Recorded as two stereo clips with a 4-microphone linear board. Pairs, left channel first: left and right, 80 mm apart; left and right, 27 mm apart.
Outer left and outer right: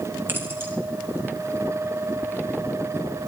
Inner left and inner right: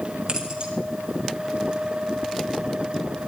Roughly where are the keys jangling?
Right.